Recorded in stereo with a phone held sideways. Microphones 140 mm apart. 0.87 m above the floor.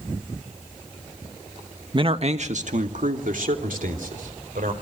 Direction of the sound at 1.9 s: 35° right (ahead or behind).